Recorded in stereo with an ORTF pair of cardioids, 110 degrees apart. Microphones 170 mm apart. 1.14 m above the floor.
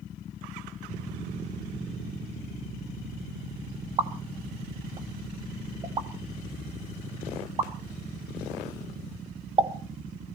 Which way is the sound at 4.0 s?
30° right.